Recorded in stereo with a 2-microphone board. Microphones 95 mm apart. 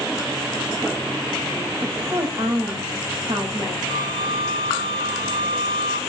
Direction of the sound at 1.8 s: 65° right (ahead or behind).